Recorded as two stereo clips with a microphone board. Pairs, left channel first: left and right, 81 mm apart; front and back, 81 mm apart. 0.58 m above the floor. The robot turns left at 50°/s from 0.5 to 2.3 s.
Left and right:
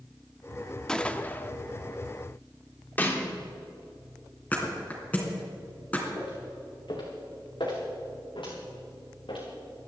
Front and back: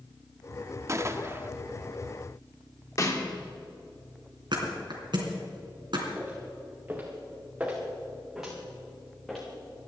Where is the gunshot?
165° left, 0.7 m; by 1.5 s 135° left, 0.7 m.